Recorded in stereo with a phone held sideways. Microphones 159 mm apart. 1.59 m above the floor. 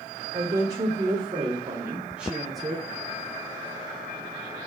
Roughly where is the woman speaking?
Right.